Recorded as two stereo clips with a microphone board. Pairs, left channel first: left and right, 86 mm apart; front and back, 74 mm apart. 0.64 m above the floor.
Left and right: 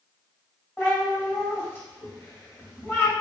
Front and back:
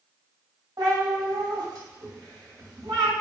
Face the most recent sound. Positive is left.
turn(degrees=155)